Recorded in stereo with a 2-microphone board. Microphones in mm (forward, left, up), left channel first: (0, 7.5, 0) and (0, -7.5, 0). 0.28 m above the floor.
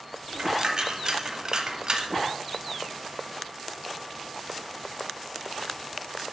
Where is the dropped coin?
45° right (ahead or behind), 0.8 m.